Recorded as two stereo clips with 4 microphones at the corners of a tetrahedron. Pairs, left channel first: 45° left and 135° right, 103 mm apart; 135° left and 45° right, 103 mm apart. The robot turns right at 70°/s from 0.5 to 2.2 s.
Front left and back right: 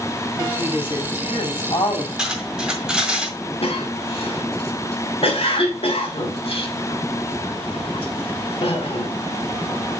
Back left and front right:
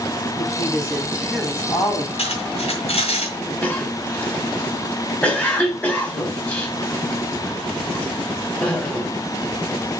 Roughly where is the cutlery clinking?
Behind left.